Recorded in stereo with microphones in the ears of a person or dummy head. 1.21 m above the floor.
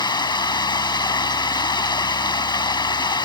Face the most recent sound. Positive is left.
turn(degrees=25)  # may be behind; listen again after turning